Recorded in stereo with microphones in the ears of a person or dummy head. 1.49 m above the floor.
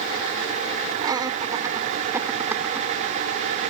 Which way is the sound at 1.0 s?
25° right (ahead or behind).